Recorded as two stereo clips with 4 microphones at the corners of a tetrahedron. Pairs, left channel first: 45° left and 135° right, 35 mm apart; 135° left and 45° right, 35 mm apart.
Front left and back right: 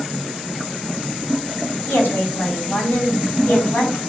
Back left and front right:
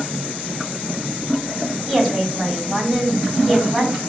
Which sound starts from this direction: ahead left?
A woman speaking, at 1.9 s.